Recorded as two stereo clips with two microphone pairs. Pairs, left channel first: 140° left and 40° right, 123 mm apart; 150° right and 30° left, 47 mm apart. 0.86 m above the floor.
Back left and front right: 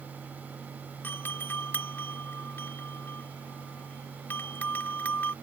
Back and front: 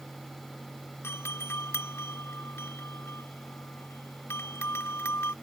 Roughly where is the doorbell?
Behind right.